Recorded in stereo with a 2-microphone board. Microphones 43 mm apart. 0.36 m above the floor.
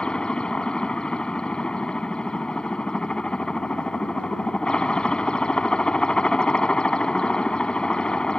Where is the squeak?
No squeak in this recording.